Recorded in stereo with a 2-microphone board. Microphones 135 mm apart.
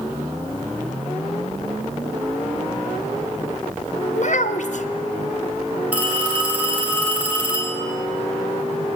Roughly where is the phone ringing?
Centre.